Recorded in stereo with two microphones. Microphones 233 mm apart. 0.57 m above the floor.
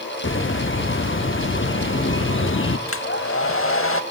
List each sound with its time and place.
0.2 s a bird: 60° left (ahead or behind), 0.5 m
2.9 s a hair dryer: 65° left (ahead or behind), 0.6 m